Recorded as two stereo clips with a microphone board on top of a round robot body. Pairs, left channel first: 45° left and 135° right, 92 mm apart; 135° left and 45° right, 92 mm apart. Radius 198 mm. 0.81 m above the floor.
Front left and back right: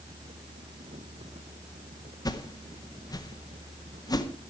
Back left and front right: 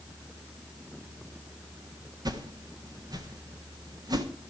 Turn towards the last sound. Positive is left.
turn(degrees=0)